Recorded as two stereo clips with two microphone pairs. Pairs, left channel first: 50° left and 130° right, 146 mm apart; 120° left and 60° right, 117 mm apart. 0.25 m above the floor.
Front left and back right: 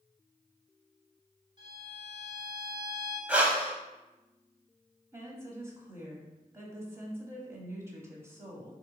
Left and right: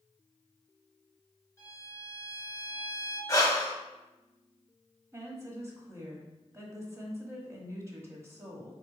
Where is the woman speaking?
80° right, 1.1 m.